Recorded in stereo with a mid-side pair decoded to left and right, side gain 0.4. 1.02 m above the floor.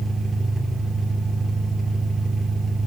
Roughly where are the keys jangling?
I don't hear keys jangling.